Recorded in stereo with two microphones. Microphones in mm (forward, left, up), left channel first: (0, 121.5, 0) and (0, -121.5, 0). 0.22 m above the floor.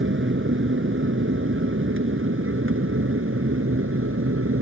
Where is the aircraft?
50° right (ahead or behind); by 4.6 s 60° right (ahead or behind).